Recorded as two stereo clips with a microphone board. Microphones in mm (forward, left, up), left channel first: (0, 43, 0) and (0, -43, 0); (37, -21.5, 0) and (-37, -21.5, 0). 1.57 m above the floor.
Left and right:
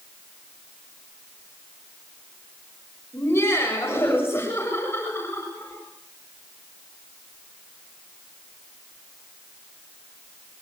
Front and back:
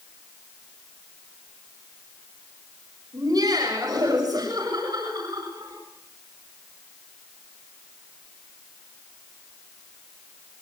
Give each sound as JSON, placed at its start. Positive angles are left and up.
{"t": 3.1, "sound": "laughter", "azimuth_deg": 150, "distance_m": 8.0}